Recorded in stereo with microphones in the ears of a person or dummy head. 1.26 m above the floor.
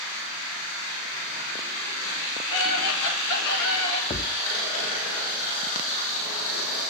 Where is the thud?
25° left (ahead or behind), 0.6 m.